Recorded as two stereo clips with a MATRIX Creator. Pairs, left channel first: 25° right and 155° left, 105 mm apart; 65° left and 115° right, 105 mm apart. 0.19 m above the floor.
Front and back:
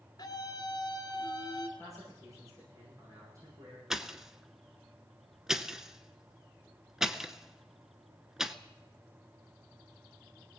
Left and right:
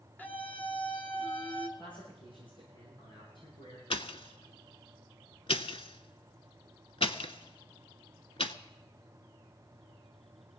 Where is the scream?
Straight ahead, 1.9 m.